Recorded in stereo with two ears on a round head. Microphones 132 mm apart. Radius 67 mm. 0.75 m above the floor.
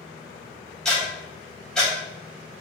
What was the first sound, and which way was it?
Ticking, 5° left (ahead or behind).